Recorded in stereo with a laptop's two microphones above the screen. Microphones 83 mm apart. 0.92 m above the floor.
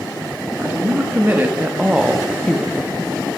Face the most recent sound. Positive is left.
turn(degrees=30)  # may be behind; listen again after turning